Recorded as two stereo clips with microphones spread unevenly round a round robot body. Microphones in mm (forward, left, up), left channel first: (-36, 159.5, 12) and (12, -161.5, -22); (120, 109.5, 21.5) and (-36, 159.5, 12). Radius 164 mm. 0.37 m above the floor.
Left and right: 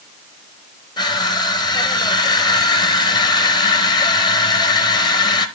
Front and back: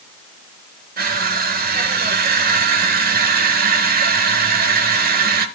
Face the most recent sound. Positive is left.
turn(degrees=180)